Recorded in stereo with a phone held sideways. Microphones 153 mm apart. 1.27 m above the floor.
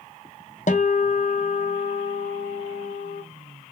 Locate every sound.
0.7 s a guitar: 55° left (ahead or behind), 0.5 m